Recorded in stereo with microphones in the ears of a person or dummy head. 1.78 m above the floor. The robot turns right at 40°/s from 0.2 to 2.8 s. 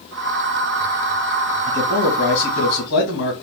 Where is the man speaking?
15° left, 2 m; by 3.3 s 65° left, 2 m.